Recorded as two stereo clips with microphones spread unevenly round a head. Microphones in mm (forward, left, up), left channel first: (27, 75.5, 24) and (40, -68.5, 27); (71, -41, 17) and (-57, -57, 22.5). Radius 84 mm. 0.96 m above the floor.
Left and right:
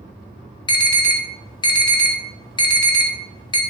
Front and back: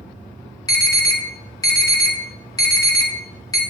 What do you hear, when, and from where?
0.7 s an alarm: 55° left, 1.4 m